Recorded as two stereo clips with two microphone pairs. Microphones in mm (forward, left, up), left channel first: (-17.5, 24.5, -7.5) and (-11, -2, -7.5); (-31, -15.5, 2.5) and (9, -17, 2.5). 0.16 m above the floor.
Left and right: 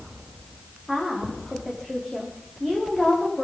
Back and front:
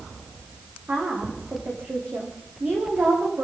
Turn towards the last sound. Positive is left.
turn(degrees=20)